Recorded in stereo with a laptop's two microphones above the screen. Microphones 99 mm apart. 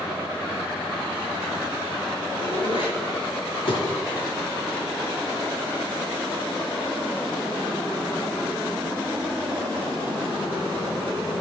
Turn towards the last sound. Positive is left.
turn(degrees=60)  # may be behind; listen again after turning